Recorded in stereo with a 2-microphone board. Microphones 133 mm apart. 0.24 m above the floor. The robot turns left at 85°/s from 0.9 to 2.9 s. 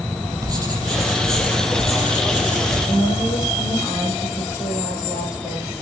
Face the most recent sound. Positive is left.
turn(degrees=25)  # may be behind; listen again after turning